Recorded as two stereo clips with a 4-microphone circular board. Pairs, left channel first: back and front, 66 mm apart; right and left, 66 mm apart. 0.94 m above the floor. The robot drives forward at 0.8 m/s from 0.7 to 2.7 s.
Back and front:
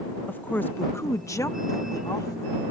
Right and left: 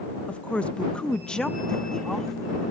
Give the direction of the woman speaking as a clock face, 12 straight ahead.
5 o'clock.